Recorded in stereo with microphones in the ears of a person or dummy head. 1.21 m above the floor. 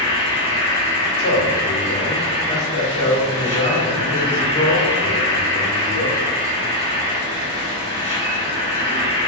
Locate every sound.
0.0 s an insect: 15° left (ahead or behind), 1.0 m
1.2 s a man speaking: 25° left (ahead or behind), 1.8 m